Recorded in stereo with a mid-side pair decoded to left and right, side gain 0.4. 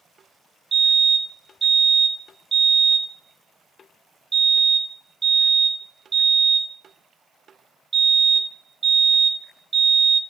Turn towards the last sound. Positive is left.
turn(degrees=-40)